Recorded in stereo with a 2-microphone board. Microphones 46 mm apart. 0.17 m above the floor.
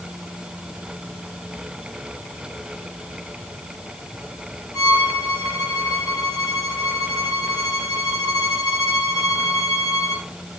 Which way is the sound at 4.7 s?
30° right (ahead or behind).